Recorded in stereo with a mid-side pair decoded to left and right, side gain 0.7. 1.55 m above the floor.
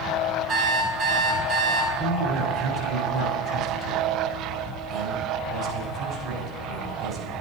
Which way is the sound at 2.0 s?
45° right.